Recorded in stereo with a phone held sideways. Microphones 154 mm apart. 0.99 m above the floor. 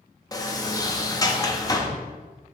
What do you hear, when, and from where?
0.3 s a sliding door: 25° left (ahead or behind), 0.7 m